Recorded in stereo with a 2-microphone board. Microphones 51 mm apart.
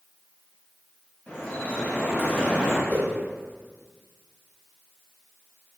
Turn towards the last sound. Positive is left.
turn(degrees=35)  # may be behind; listen again after turning